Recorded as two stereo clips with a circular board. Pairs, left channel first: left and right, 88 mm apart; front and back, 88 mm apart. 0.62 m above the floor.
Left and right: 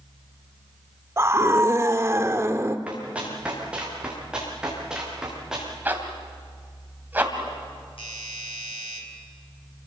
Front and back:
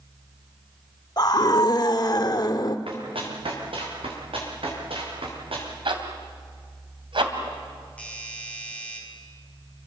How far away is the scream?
About 1.2 m.